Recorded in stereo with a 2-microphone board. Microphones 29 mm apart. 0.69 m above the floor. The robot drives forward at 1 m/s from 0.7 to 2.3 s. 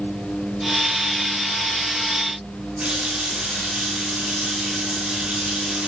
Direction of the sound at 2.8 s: 55° right (ahead or behind).